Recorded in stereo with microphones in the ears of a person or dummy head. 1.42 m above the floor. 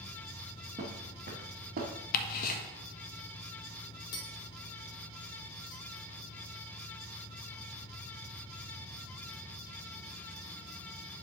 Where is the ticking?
45° left (ahead or behind), 1.5 m.